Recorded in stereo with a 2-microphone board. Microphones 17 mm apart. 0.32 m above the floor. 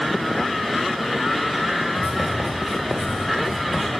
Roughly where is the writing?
Right.